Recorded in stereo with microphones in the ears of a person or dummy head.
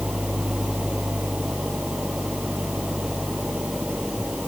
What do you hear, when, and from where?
0.0 s an engine running: 5° right (ahead or behind)